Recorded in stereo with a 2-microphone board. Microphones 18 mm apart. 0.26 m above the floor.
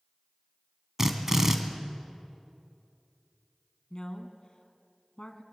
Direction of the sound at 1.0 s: 25° right (ahead or behind).